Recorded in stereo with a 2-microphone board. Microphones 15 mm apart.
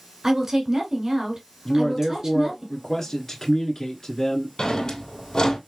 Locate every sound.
0.2 s a woman speaking: 30° right (ahead or behind), 1.8 m
1.6 s a man speaking: 30° left (ahead or behind), 1.5 m
4.6 s a drawer: 50° left (ahead or behind), 2 m